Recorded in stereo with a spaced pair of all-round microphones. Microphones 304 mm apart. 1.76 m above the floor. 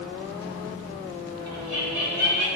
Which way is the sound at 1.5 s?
75° left (ahead or behind).